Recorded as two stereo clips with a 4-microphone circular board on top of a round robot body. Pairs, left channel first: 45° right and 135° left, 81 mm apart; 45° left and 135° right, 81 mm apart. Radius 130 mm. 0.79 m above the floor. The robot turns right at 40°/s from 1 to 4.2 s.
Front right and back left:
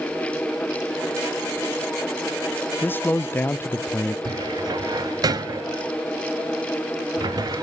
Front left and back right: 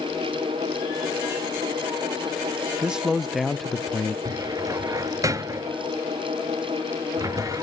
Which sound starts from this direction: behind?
A cupboard door, at 4.2 s.